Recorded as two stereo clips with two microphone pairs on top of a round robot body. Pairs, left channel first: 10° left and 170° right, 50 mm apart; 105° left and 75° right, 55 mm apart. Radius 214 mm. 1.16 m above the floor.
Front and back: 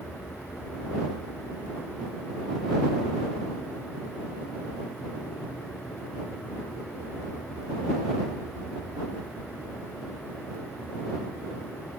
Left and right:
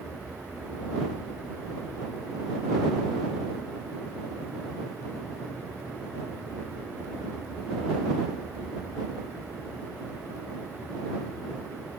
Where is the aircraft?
45° left.